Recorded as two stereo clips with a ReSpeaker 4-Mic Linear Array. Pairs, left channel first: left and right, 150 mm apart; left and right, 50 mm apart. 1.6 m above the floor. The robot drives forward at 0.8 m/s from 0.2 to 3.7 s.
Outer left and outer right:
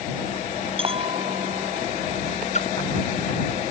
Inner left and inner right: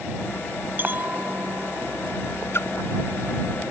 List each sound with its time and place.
0.8 s a clink: 40° right (ahead or behind); by 2.4 s 45° right (ahead or behind)
2.5 s a splash: 50° left (ahead or behind)